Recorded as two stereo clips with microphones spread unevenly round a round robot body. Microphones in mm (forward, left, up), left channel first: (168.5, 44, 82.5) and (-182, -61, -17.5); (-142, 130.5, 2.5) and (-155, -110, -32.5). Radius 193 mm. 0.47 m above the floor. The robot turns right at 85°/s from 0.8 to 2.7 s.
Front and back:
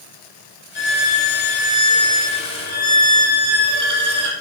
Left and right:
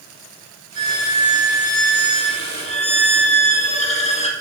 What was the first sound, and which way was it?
A violin, 10° right.